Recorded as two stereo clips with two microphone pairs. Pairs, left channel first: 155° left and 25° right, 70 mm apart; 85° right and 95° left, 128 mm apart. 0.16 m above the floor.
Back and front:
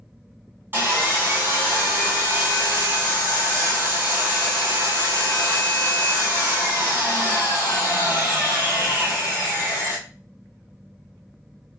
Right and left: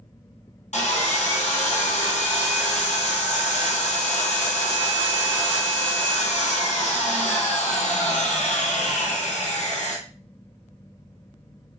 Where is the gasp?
No gasp in this recording.